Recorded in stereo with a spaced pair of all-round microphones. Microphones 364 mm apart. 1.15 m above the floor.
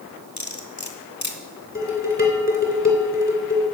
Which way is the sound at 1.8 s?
25° left (ahead or behind).